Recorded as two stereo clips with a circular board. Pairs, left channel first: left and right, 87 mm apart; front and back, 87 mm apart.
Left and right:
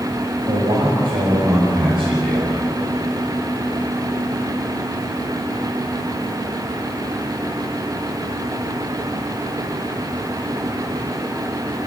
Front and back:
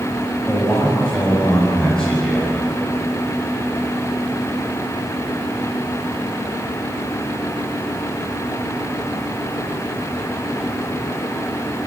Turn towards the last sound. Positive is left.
turn(degrees=-80)